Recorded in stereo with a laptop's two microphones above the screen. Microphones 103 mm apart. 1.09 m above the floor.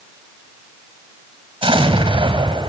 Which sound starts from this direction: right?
An explosion, at 1.6 s.